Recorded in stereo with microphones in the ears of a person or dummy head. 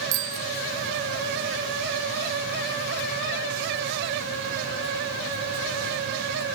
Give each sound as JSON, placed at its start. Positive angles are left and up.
{"t": 0.1, "sound": "a bicycle bell", "side_deg": -75}